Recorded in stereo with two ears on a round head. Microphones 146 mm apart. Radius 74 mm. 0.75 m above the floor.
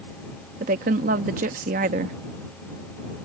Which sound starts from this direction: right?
A woman speaking, at 0.6 s.